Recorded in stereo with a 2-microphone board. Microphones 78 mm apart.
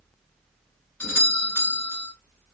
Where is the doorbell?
20° left (ahead or behind), 1.9 m.